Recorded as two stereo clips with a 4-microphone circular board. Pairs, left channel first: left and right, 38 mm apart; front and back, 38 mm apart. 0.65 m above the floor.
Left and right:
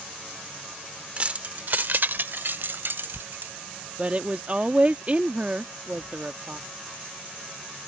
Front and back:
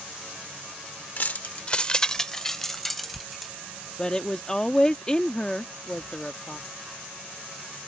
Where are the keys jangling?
35° right; by 3.5 s 95° right.